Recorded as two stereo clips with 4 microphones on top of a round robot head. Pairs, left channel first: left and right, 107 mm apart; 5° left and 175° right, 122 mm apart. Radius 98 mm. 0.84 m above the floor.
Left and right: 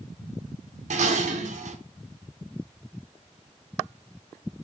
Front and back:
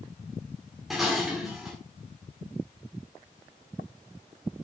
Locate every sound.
0.9 s dishes clattering: 90° right, 1.9 m